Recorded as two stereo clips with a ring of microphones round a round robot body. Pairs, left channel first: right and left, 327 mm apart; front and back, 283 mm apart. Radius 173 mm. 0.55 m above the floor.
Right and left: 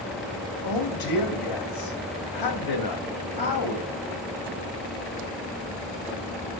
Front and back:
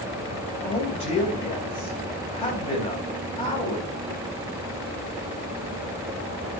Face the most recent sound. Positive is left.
turn(degrees=-75)